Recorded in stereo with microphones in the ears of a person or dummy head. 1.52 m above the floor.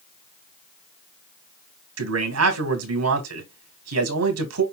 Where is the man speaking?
85° right, 1.4 m.